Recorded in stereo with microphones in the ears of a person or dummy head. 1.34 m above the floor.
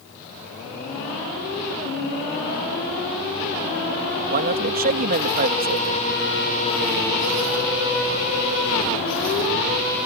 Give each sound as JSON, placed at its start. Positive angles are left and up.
{"t": 4.3, "sound": "a man speaking", "side_deg": -50}